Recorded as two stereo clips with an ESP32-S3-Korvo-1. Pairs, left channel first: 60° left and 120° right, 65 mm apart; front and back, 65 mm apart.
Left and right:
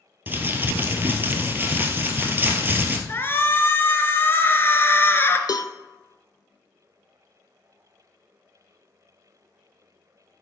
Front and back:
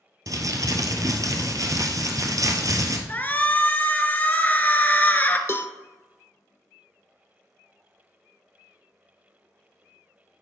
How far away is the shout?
About 1.3 m.